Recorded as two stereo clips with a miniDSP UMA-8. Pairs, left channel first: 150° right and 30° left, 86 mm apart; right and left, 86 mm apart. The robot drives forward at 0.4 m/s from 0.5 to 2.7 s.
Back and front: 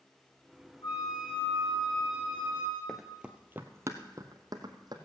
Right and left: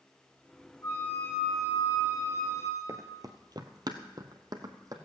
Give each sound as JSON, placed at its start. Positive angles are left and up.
{"t": 0.8, "sound": "a flute", "azimuth_deg": -140, "distance_m": 5.0}
{"t": 2.9, "sound": "running footsteps", "azimuth_deg": 125, "distance_m": 1.1}